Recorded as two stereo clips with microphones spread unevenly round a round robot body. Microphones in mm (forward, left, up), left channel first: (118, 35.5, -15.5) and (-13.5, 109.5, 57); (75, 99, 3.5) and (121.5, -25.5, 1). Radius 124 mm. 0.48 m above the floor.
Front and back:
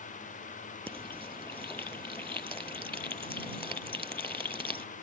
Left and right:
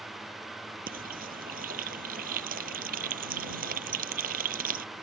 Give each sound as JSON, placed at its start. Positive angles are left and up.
{"t": 0.9, "sound": "frying", "azimuth_deg": -110}